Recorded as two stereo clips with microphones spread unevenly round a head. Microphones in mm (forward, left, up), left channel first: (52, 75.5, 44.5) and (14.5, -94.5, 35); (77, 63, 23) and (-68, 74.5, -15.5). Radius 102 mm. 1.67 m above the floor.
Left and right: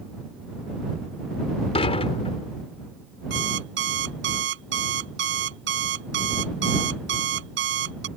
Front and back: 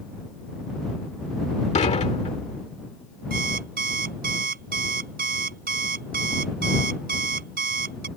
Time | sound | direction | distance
1.8 | dishes clattering | 25° left | ?
3.3 | an alarm clock | 135° right | ?